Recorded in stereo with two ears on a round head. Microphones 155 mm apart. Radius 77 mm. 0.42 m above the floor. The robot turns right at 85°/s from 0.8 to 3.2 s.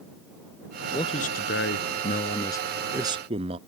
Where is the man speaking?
20° left; by 3.6 s 145° right.